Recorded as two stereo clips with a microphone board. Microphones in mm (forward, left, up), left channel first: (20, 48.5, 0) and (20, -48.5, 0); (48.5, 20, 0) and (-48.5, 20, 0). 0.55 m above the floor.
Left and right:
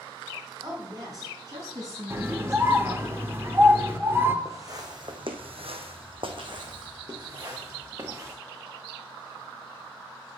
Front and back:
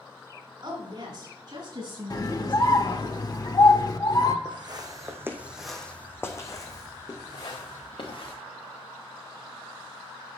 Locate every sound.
0.6 s a woman speaking: 140° right, 6.5 m; by 3.1 s 145° right, 5.5 m
2.1 s a scream: 30° right, 1.3 m
4.5 s footsteps: 145° right, 2 m; by 8.3 s 30° right, 4.5 m